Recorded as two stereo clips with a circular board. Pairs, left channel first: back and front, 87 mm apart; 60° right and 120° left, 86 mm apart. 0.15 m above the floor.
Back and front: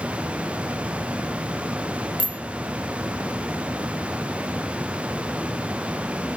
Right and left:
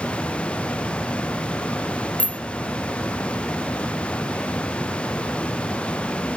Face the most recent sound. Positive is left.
turn(degrees=15)